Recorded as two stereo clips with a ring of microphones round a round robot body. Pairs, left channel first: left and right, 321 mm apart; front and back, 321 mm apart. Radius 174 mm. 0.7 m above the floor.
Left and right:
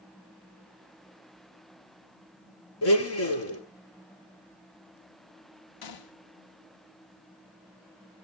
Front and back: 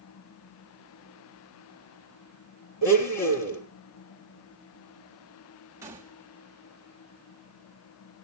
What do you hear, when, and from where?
2.8 s a blender: 45° left, 3.5 m
5.8 s a gunshot: 100° left, 1.1 m